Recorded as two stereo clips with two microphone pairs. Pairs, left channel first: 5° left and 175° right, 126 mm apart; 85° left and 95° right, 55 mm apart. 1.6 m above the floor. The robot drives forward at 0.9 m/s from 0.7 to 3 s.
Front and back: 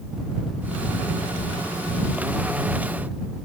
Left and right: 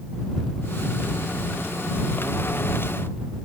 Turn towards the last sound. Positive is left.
No sound to turn to.